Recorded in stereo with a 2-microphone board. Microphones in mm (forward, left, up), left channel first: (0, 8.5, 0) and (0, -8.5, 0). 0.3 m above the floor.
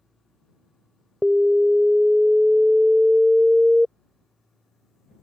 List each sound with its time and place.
1.2 s an alarm: 30° right (ahead or behind)